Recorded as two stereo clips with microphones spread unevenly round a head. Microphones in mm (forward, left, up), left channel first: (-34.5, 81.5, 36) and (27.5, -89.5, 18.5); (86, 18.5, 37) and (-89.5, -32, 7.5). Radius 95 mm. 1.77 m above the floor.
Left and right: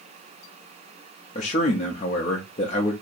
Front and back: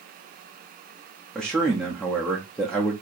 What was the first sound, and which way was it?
A man speaking, 90° left.